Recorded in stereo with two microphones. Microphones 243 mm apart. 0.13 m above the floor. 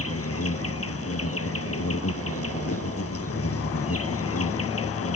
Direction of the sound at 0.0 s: 65° left (ahead or behind).